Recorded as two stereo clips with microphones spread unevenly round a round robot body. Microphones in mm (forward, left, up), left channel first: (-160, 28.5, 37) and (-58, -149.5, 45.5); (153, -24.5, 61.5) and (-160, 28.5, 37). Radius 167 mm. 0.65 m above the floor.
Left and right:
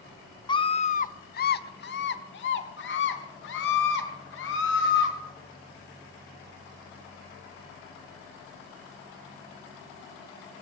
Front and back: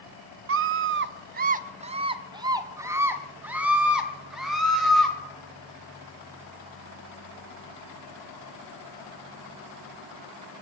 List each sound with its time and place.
0.5 s a scream: straight behind, 0.7 m; by 5.2 s 80° left, 2.5 m